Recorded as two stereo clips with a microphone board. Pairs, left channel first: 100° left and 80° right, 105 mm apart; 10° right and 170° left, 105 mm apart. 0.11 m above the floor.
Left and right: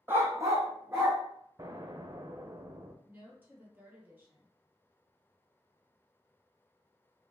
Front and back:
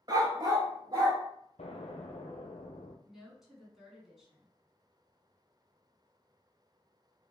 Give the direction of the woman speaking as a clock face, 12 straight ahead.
4 o'clock.